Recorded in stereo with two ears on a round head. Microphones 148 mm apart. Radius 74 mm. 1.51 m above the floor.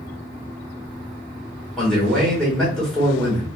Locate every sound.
1.8 s a man speaking: 5° left (ahead or behind), 1.4 m